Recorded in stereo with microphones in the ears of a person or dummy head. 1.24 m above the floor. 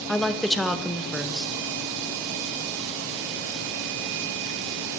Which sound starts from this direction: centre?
A woman speaking, at 0.1 s.